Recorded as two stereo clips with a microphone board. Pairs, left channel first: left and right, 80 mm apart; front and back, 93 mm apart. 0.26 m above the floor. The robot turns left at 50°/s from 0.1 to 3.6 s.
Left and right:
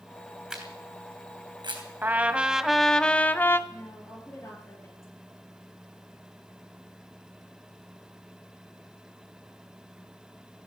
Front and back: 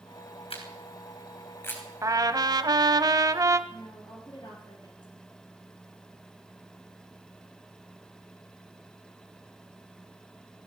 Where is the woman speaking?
35° left, 5.5 m.